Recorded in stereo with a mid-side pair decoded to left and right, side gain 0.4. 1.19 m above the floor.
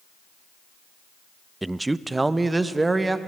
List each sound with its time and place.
1.6 s a man speaking: 15° right, 0.5 m; by 3.2 s 25° right, 1.5 m